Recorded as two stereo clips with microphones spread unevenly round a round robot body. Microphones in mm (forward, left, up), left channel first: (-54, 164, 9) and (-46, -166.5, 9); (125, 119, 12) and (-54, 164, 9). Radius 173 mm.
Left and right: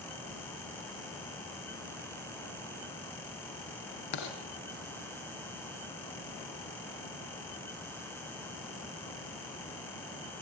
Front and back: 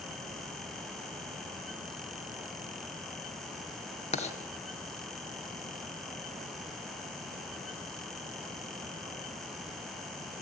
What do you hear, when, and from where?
4.1 s writing: 45° left, 3 m